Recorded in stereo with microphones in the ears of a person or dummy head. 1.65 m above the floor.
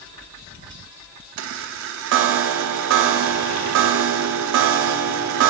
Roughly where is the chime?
Right.